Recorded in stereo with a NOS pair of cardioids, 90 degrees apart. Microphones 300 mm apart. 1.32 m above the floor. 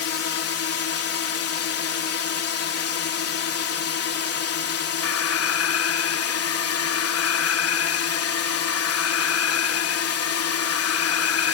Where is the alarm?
55° left.